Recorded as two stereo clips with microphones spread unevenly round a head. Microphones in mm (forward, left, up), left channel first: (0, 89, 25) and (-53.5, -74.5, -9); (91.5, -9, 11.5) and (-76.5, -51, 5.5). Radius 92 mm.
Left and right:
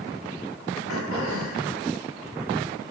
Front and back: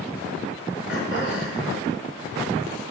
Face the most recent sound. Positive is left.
turn(degrees=55)